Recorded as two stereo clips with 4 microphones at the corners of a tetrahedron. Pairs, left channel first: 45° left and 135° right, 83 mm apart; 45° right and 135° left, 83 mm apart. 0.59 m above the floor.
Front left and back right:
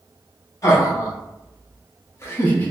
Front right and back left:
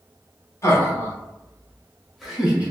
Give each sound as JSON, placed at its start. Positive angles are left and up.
{"t": 0.6, "sound": "laughter", "azimuth_deg": 5, "distance_m": 1.2}